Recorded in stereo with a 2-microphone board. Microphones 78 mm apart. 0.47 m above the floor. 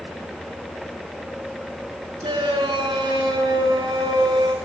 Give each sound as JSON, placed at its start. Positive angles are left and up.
{"t": 2.2, "sound": "a shout", "side_deg": -80, "distance_m": 7.0}